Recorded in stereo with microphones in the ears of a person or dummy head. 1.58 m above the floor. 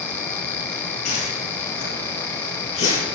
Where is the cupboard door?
I don't hear a cupboard door.